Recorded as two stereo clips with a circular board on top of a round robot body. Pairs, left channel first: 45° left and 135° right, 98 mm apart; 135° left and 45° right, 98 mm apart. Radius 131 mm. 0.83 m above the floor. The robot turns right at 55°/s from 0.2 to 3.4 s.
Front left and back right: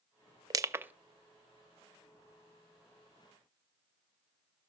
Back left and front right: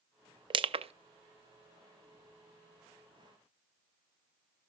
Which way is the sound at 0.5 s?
85° right.